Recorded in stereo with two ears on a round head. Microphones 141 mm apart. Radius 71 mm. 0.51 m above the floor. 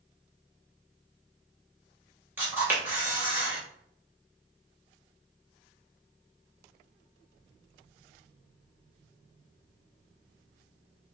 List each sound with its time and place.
2.4 s a camera shutter: 15° right (ahead or behind), 1.3 m